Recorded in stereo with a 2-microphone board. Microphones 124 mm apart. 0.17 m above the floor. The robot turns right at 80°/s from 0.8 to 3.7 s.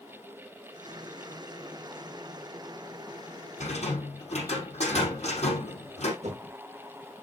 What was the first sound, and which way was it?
A rattle, 65° left (ahead or behind).